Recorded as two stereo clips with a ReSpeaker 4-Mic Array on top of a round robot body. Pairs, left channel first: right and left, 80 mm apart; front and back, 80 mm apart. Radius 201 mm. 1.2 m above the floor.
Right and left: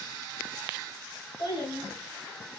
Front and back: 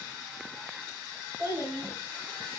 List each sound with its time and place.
1.4 s a child speaking: 115° right, 1.9 m